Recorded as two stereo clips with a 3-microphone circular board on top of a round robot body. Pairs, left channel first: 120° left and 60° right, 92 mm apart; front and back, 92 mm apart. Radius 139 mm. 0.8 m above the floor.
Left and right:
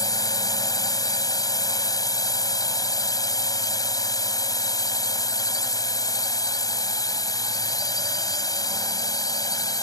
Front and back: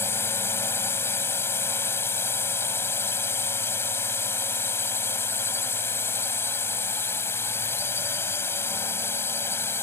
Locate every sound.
0.0 s a drone: 70° left